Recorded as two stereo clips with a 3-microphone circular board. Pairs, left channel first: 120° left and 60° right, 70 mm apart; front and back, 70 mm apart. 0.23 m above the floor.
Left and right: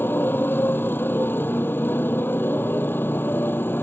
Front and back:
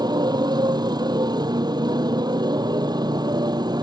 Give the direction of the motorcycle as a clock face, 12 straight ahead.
6 o'clock.